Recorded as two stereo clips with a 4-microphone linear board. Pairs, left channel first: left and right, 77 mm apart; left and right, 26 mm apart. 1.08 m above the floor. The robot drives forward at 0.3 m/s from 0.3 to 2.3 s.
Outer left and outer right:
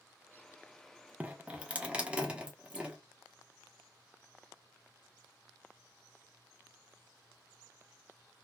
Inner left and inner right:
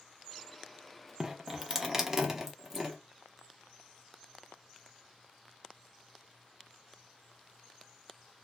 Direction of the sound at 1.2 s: 20° right (ahead or behind).